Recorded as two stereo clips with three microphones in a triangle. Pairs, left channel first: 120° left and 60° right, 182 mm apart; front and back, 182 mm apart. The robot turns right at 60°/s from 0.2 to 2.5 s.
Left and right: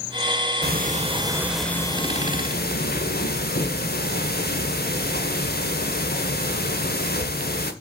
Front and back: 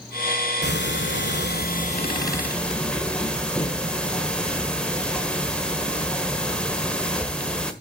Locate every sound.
0.6 s ticking: 30° right, 1.5 m; by 7.7 s 85° left, 1.5 m